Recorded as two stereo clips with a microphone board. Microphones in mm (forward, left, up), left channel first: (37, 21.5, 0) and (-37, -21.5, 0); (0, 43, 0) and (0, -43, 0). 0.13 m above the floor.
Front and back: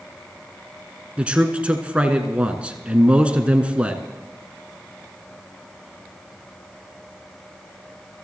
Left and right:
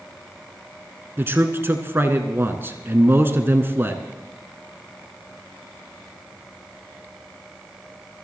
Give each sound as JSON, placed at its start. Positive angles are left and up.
{"t": 1.2, "sound": "a man speaking", "azimuth_deg": -95, "distance_m": 1.2}